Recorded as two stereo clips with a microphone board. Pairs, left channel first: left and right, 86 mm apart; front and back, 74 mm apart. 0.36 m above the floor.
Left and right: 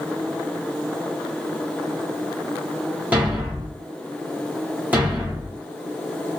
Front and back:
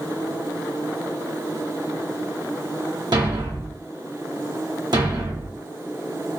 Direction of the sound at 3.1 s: 165° right.